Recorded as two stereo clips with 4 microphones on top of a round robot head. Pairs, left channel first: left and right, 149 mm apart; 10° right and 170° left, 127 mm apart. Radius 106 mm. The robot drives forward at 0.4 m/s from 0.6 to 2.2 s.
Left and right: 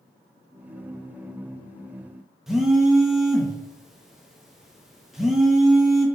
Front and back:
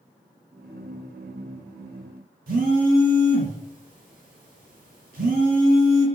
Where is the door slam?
I don't hear a door slam.